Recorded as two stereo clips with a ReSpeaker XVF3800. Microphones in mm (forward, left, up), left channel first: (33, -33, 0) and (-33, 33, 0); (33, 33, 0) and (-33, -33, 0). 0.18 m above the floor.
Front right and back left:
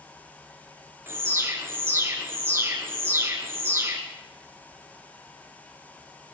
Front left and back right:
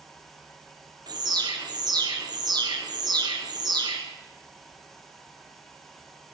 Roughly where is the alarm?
Behind.